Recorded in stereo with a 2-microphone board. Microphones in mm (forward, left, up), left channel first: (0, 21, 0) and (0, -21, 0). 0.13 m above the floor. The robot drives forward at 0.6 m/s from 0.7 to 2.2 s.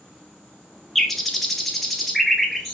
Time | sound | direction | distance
0.9 | a bird | 5° left (ahead or behind) | 0.7 m